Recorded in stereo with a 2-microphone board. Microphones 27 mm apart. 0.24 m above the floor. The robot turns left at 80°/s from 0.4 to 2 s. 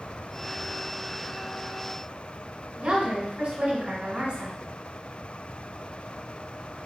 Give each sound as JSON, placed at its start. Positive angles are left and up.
{"t": 2.8, "sound": "a woman speaking", "side_deg": -40, "distance_m": 1.3}